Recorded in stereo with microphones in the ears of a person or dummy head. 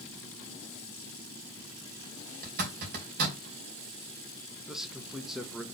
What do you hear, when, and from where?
2.4 s a zipper: 55° right (ahead or behind), 2.5 m
4.7 s a man speaking: centre (ahead or behind), 0.9 m